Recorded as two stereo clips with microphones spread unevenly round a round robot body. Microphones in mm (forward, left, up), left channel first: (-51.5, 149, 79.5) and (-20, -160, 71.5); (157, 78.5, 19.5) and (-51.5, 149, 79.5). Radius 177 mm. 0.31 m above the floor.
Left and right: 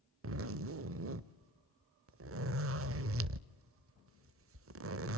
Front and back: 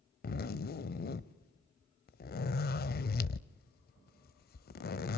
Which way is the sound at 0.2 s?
45° right.